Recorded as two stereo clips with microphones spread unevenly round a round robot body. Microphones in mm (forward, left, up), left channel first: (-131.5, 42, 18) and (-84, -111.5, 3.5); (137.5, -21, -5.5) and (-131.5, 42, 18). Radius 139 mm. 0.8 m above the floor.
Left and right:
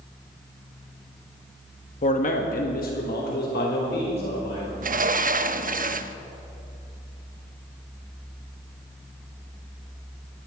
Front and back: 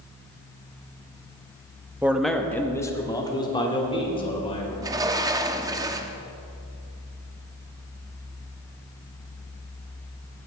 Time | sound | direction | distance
2.0 | a man speaking | 80° left | 1.1 m
4.8 | a sliding door | 115° right | 0.6 m